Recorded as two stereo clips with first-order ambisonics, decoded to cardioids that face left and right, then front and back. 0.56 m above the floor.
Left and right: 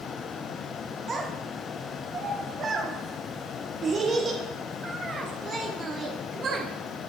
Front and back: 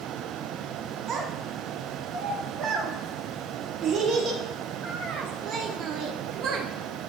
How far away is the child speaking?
About 0.7 m.